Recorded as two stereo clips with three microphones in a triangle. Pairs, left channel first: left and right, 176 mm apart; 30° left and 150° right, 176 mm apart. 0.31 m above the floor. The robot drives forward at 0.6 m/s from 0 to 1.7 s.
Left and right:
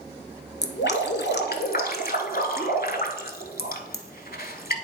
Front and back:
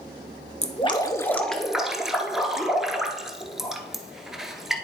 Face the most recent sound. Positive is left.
turn(degrees=120)